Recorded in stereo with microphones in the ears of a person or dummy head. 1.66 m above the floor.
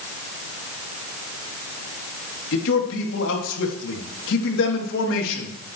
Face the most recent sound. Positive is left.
turn(degrees=85)